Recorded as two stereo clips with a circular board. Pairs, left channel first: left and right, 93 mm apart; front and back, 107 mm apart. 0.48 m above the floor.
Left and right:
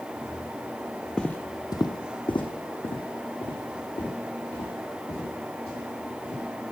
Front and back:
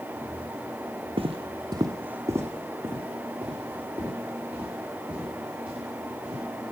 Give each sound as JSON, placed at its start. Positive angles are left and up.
{"t": 1.2, "sound": "footsteps", "azimuth_deg": 175, "distance_m": 0.8}